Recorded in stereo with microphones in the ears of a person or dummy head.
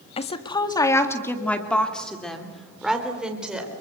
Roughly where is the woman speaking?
Left.